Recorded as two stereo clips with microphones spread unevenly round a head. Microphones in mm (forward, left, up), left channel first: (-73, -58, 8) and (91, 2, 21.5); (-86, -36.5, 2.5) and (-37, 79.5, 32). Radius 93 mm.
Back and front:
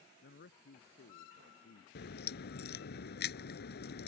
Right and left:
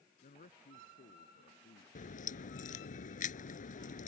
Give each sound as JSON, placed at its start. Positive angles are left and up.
{"t": 0.2, "sound": "a man speaking", "azimuth_deg": -130}
{"t": 1.9, "sound": "a crack", "azimuth_deg": -130}